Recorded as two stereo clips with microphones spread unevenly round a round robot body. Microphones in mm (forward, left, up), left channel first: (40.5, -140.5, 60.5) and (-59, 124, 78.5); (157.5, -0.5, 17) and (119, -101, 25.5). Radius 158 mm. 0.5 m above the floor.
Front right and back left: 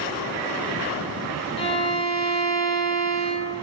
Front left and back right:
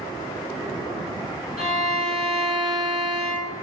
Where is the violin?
140° right, 0.8 m.